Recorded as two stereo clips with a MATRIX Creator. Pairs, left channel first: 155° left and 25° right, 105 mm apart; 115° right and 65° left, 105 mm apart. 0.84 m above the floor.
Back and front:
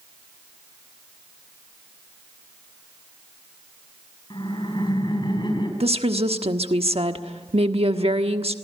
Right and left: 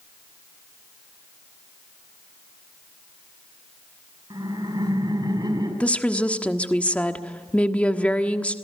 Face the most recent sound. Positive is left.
turn(degrees=-35)